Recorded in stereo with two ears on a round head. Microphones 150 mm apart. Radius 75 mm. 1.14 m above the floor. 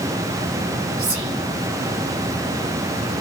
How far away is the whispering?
About 0.9 m.